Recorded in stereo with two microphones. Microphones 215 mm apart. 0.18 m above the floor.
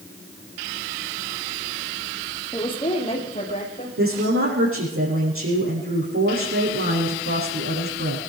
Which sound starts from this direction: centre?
A woman speaking, at 2.5 s.